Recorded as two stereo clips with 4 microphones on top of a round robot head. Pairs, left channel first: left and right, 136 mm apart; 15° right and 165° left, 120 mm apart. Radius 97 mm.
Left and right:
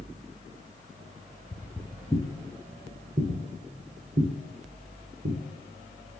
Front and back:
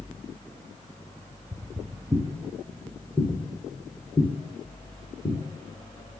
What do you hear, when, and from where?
1.5 s footsteps: 150° left, 1.2 m; by 5.4 s 75° right, 2.5 m